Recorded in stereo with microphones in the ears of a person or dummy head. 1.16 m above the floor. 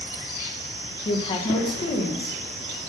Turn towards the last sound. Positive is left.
turn(degrees=25)  # may be behind; listen again after turning